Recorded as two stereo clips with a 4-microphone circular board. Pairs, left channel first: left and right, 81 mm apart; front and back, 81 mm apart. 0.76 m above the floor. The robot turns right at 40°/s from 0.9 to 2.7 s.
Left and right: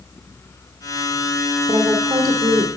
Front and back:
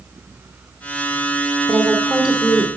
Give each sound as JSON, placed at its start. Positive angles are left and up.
{"t": 1.7, "sound": "a woman speaking", "azimuth_deg": -120, "distance_m": 1.7}